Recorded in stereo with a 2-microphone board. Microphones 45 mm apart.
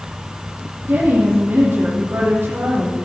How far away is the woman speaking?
About 5.5 m.